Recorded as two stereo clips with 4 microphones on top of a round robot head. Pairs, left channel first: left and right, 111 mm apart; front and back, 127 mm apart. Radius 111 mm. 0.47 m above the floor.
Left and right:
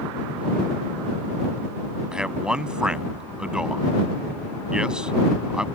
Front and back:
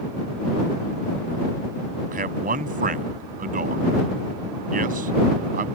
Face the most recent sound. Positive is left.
turn(degrees=-175)